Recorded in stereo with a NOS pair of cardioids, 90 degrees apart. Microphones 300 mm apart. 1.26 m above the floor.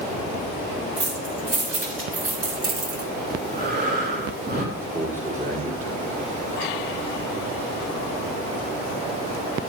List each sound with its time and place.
1.0 s keys jangling: 40° right, 4.5 m; by 3.1 s 50° right, 2.0 m
3.3 s breathing: 35° right, 3 m
4.8 s a man speaking: 25° right, 5 m